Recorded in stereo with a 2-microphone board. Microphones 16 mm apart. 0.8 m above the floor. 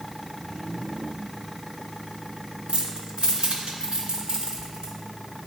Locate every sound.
2.7 s keys jangling: 75° right (ahead or behind), 1.0 m; by 4.9 s 60° right (ahead or behind), 1.7 m